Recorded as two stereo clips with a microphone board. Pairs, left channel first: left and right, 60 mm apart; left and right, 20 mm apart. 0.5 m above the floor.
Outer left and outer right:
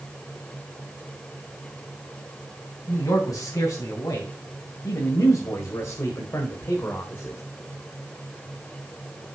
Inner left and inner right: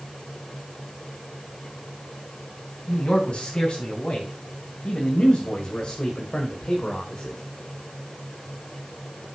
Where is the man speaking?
70° left (ahead or behind), 3.5 m; by 7.4 s 35° left (ahead or behind), 1.6 m.